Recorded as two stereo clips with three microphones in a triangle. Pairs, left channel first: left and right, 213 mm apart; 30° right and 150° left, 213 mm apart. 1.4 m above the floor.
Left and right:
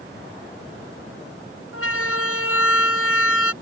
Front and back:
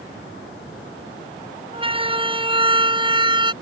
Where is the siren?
85° left; by 3.5 s 80° left.